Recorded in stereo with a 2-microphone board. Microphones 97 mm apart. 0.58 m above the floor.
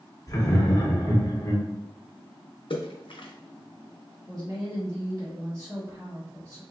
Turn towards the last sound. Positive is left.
turn(degrees=-40)  # may be behind; listen again after turning